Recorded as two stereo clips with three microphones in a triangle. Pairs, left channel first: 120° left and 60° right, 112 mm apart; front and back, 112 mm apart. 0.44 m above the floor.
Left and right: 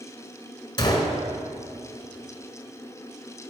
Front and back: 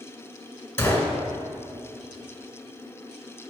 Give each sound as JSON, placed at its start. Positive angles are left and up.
{"t": 0.8, "sound": "a gunshot", "azimuth_deg": 70, "distance_m": 1.4}